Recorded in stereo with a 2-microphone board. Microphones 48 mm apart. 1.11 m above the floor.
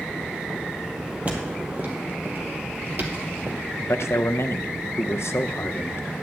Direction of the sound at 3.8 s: 70° left (ahead or behind).